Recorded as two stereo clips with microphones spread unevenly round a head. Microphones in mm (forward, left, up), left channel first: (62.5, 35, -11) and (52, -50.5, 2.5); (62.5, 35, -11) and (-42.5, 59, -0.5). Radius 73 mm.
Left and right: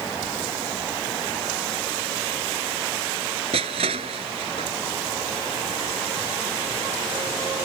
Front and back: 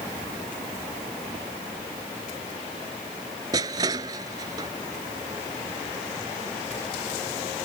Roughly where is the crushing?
Behind right.